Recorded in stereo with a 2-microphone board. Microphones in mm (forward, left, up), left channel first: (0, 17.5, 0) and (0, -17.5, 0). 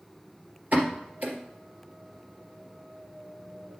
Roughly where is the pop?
Right.